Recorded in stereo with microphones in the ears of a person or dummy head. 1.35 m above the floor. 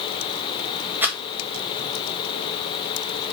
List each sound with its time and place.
1.0 s a rattle: 10° right (ahead or behind), 0.9 m